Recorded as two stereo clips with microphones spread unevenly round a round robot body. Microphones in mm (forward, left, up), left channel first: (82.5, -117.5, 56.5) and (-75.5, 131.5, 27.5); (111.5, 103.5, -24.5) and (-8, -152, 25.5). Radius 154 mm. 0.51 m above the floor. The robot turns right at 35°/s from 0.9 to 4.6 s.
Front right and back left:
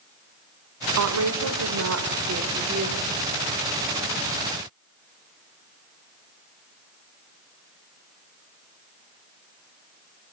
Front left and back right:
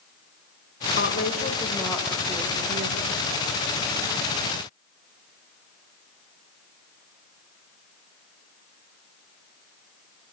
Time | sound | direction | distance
1.0 | a woman speaking | 110° left | 2 m